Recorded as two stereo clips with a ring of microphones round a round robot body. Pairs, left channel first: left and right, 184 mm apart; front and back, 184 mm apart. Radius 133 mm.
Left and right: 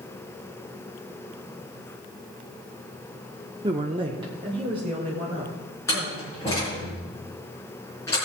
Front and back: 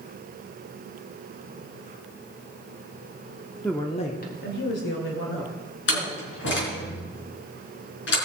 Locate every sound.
3.6 s a woman speaking: 85° right, 0.8 m; by 6.9 s 15° right, 5 m
5.9 s a door slam: 10° left, 4.5 m